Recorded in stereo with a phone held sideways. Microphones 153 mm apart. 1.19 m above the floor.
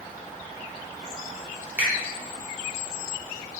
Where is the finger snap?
10° right (ahead or behind), 1.3 m.